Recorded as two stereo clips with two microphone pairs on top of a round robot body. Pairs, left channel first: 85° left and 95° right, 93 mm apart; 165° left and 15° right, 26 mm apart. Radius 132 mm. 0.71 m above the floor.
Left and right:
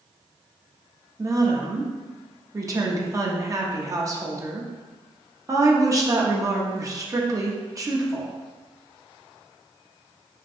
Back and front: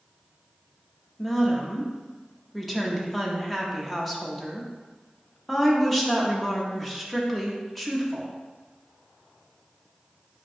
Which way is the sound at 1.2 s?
95° right.